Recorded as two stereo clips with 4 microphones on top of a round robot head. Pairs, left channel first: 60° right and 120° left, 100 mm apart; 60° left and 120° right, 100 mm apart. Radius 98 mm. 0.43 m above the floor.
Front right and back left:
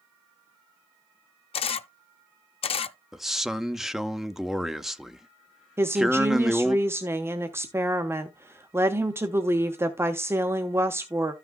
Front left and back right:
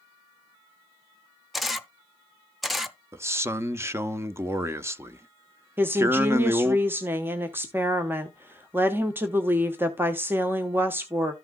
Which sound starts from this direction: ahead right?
A camera shutter, at 1.5 s.